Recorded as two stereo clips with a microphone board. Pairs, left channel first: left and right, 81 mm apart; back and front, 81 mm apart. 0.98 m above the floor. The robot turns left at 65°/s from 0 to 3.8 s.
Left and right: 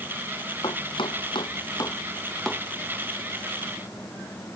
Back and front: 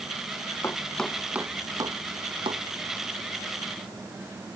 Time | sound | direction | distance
0.6 | chopping | 120° left | ?